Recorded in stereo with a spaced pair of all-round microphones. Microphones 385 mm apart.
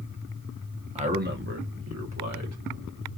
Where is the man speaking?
15° right (ahead or behind), 0.8 m; by 3.2 s 50° right (ahead or behind), 1.9 m.